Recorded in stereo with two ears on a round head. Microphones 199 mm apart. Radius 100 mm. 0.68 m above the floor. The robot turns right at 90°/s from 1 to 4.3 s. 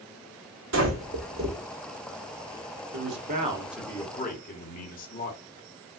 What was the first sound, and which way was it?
Breathing, 55° right (ahead or behind).